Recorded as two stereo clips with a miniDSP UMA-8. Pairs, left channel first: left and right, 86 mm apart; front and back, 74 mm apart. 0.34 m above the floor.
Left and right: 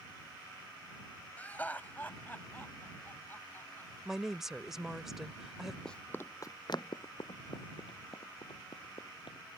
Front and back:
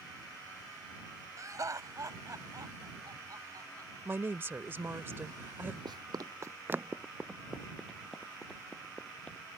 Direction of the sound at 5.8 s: 175° left.